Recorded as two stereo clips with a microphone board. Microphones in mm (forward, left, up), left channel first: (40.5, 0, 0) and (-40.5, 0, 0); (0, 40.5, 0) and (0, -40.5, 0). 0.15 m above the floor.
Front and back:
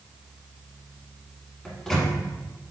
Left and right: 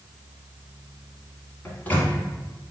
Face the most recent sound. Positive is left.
turn(degrees=75)